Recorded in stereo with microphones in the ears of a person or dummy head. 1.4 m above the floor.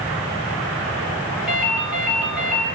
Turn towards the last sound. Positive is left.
turn(degrees=-10)  # may be behind; listen again after turning